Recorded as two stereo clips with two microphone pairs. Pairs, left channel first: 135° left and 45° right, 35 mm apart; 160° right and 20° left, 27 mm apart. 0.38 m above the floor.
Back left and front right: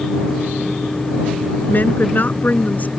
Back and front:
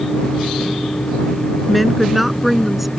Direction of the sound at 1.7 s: 110° left.